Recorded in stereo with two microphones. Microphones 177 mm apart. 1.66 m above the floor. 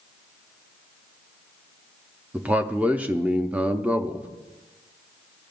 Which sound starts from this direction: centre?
A man speaking, at 2.3 s.